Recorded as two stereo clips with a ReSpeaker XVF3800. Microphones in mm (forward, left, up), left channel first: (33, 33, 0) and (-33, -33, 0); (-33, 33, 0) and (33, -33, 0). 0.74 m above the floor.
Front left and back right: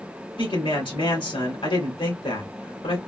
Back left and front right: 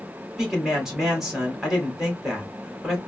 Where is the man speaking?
40° left, 2 m.